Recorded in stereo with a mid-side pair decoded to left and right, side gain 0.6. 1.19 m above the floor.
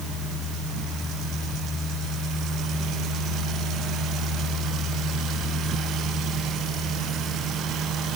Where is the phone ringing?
No phone ringing in this recording.